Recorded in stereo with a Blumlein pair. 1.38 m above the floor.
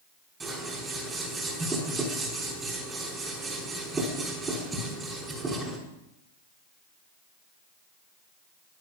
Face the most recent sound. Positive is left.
turn(degrees=-20)